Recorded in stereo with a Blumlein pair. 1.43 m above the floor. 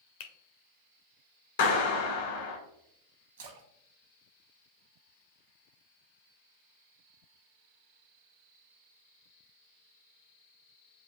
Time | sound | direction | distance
0.2 | a finger snap | 50° left | 0.7 m
1.6 | a clap | 55° left | 1.3 m
3.4 | a splash | 60° right | 0.9 m